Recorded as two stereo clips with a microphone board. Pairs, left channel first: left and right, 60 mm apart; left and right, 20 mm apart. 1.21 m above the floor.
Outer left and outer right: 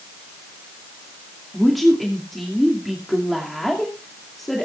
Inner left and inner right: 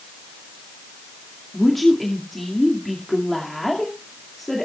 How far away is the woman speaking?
About 2.5 m.